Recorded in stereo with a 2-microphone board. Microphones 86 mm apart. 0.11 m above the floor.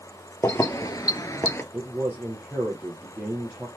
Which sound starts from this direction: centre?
A man speaking, at 1.7 s.